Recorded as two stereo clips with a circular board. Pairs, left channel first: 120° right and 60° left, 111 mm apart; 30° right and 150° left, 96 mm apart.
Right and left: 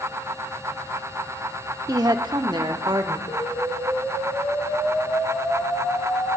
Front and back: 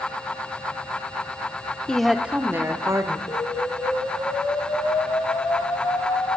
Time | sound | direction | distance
1.9 | a woman speaking | 45° left | 0.9 m
3.3 | an explosion | 75° right | 1.8 m